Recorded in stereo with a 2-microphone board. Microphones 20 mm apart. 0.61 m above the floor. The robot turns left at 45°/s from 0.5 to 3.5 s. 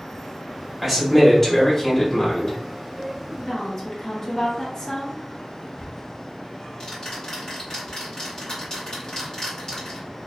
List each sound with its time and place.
0.8 s a man speaking: 165° right, 1.7 m; by 2.6 s 120° left, 1.7 m
3.4 s a woman speaking: 25° left (ahead or behind), 1.0 m; by 5.6 s 30° left (ahead or behind), 1.0 m
5.7 s ticking: 40° left (ahead or behind), 1.9 m